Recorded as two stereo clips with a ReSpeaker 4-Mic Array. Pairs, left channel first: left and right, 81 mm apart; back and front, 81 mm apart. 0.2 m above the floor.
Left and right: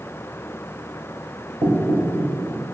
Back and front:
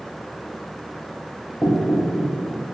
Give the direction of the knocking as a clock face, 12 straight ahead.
3 o'clock.